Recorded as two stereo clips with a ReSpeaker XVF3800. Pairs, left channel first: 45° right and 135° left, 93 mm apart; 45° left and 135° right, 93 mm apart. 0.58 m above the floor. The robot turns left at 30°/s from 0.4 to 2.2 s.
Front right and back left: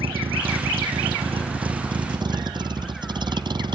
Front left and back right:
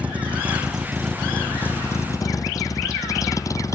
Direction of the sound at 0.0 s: 150° left.